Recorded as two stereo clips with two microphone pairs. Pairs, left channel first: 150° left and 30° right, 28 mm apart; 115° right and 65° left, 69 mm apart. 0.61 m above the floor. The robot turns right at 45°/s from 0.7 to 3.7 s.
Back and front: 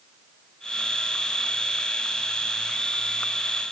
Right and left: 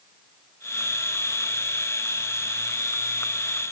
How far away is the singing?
I don't hear singing.